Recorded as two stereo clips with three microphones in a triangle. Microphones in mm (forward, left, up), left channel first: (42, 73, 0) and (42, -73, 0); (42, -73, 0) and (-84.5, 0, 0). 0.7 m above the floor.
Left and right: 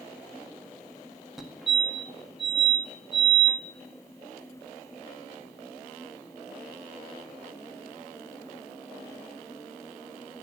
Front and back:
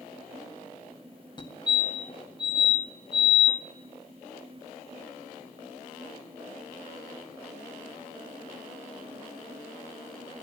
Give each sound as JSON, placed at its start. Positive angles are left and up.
{"t": 1.4, "sound": "a fire alarm", "azimuth_deg": -5, "distance_m": 1.8}